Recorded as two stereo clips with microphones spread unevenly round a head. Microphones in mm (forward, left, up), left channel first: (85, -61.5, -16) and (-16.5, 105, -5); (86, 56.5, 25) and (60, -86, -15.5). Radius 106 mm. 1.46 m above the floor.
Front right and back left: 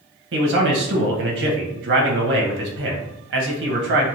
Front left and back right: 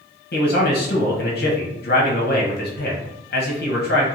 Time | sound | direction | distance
0.3 | a man speaking | 100° left | 1.3 m